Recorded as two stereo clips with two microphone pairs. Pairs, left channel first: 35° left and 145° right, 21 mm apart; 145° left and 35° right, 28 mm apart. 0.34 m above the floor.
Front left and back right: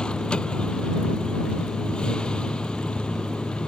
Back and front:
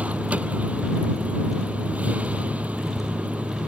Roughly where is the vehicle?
Ahead.